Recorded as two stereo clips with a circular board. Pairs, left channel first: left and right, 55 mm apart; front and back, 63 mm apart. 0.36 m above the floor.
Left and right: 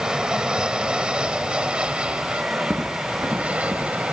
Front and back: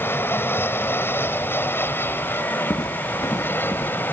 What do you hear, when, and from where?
0.0 s an aircraft: 20° right; by 4.1 s 35° right
2.7 s footsteps: 20° right; by 3.9 s 25° right